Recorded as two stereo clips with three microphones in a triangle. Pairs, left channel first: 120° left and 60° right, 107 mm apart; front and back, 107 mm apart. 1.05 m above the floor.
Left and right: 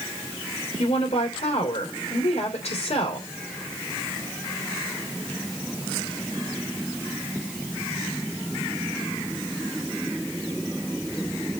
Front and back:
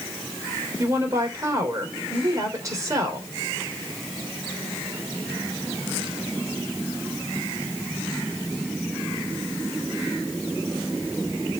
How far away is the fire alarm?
I don't hear a fire alarm.